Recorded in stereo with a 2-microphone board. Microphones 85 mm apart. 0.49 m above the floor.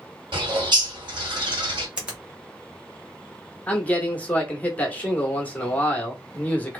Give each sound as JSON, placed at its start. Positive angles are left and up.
{"t": 0.3, "sound": "a bird", "side_deg": -65, "distance_m": 1.4}
{"t": 2.0, "sound": "a finger snap", "side_deg": -10, "distance_m": 1.1}
{"t": 3.7, "sound": "a man speaking", "side_deg": 15, "distance_m": 0.9}